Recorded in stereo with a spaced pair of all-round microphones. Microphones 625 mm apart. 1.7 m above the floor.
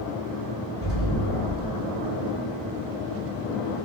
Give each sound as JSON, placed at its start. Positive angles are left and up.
{"t": 0.8, "sound": "an explosion", "side_deg": 20, "distance_m": 1.8}